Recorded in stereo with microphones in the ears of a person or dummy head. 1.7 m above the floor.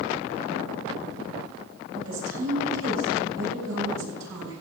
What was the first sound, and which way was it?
A woman speaking, 85° right.